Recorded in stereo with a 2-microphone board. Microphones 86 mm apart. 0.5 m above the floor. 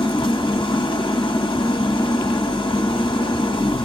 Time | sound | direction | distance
0.0 | an engine running | 85° left | 1.4 m